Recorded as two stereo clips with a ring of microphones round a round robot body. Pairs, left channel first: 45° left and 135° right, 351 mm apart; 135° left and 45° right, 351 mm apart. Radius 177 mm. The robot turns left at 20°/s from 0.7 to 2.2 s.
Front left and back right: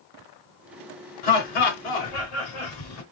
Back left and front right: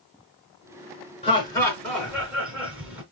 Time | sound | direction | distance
1.2 | laughter | 60° left | 3.5 m